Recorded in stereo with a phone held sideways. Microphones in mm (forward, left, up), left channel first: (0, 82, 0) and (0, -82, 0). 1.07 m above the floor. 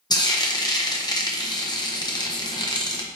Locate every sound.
0.1 s frying: 25° left (ahead or behind), 0.8 m